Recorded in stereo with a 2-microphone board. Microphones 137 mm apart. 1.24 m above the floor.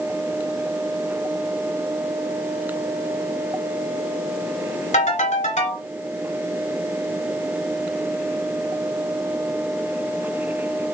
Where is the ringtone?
70° left (ahead or behind), 3 m.